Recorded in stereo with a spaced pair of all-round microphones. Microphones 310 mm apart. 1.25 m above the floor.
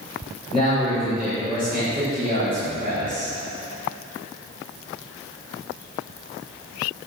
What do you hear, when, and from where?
0.5 s a man speaking: 15° left (ahead or behind), 4.5 m